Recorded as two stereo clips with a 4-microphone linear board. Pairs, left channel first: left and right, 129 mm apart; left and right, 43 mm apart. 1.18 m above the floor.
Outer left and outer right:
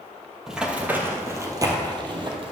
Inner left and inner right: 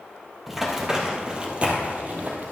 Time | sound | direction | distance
0.5 | running footsteps | 5° right (ahead or behind) | 1.6 m